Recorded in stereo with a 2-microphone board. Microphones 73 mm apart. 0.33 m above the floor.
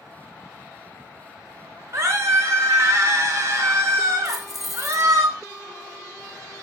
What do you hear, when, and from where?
1.9 s a scream: 45° right (ahead or behind), 2.0 m
4.2 s keys jangling: 5° right (ahead or behind), 0.8 m